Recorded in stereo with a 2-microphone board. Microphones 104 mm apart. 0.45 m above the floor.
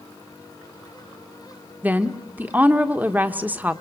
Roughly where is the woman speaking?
Centre.